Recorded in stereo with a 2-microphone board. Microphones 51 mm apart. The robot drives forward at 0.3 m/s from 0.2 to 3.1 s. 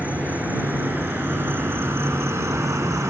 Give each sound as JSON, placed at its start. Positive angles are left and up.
{"t": 0.0, "sound": "an insect", "side_deg": -30, "distance_m": 1.1}